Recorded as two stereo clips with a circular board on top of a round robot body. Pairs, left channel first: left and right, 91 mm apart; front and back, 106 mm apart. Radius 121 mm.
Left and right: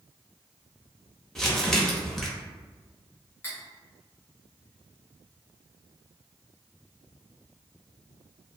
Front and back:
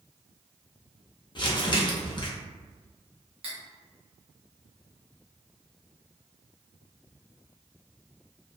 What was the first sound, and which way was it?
Crumpling, 5° left.